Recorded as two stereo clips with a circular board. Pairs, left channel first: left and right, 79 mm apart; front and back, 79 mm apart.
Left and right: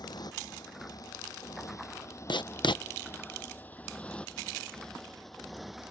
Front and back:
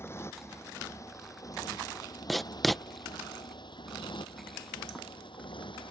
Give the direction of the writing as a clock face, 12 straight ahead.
9 o'clock.